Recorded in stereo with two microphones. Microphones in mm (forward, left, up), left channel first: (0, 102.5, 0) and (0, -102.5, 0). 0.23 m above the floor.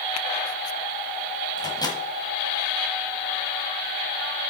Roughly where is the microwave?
Centre.